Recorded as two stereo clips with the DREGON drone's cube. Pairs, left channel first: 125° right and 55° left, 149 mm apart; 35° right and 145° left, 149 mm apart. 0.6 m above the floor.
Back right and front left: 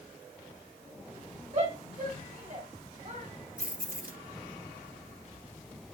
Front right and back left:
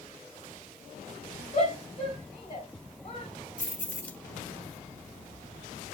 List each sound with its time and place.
1.5 s a shout: 20° left, 3.5 m
3.6 s keys jangling: 45° left, 1.0 m